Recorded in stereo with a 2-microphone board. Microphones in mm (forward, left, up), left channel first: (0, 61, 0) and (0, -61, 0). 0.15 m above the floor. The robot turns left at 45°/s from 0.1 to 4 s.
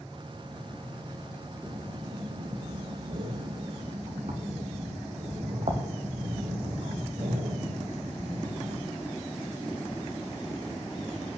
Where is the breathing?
20° right (ahead or behind), 3 m; by 8.9 s 50° right (ahead or behind), 3 m.